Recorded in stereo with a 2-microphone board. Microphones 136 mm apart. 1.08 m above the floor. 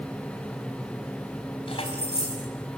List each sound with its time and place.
1.7 s keys jangling: 45° left (ahead or behind), 4.5 m